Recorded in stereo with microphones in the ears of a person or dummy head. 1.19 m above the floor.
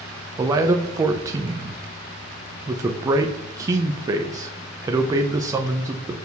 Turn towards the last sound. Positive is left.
turn(degrees=-25)  # may be behind; listen again after turning